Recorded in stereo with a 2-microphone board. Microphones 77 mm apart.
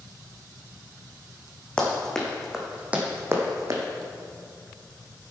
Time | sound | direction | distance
1.8 | running footsteps | 15° left (ahead or behind) | 3 m